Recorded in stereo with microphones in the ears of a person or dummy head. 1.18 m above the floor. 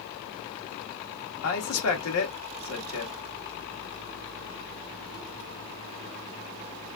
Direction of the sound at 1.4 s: 80° left.